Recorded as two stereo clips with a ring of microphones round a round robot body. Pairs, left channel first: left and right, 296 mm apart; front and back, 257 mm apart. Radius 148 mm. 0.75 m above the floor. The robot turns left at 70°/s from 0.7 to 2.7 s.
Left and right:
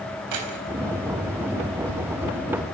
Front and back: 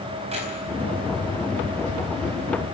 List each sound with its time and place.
0.3 s keys jangling: 110° right, 4 m